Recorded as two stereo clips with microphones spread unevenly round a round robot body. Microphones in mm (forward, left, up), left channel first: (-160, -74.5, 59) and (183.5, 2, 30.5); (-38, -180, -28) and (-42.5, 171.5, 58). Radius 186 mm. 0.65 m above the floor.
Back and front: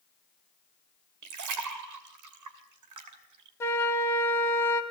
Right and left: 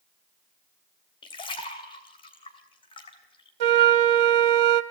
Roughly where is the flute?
Left.